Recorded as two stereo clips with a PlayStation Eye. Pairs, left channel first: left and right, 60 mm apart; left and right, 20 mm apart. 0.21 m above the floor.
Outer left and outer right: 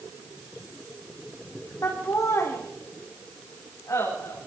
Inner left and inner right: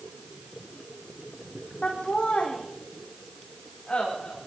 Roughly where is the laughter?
Left.